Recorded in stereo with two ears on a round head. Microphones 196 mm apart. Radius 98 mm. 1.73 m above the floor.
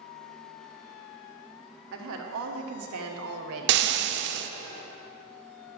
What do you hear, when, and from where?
1.9 s a woman speaking: 65° right (ahead or behind), 1.6 m; by 3.9 s 70° right (ahead or behind), 1.4 m
3.7 s frying: 55° right (ahead or behind), 0.6 m